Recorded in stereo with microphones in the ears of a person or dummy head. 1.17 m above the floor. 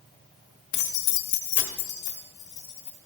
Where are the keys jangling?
35° left (ahead or behind), 0.7 m; by 3.0 s 30° left (ahead or behind), 2.5 m.